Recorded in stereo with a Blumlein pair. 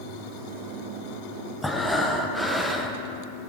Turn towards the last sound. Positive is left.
turn(degrees=5)